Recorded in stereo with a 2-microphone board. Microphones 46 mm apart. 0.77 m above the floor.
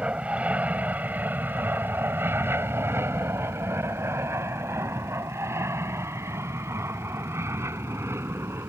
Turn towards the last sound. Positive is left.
turn(degrees=-70)  # may be behind; listen again after turning